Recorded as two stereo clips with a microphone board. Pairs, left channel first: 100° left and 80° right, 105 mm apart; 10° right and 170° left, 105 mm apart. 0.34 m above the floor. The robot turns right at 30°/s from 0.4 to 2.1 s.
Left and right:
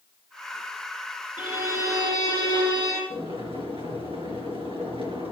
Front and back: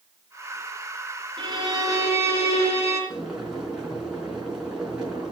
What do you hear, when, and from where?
1.4 s a violin: 145° right, 5.5 m; by 3.0 s 125° right, 5.5 m
3.1 s boiling: 105° right, 4 m